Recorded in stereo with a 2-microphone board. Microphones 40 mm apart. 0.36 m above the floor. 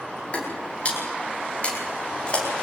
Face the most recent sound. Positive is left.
turn(degrees=30)  # may be behind; listen again after turning